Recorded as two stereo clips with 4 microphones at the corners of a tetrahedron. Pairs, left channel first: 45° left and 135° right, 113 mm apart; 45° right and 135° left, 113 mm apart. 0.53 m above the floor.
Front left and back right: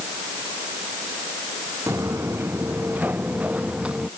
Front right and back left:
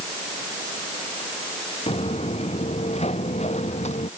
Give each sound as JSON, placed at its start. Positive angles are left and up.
{"t": 1.9, "sound": "footsteps", "azimuth_deg": -70}